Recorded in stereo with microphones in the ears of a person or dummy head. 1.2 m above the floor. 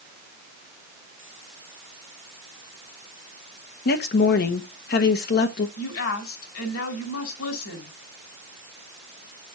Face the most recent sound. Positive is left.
turn(degrees=80)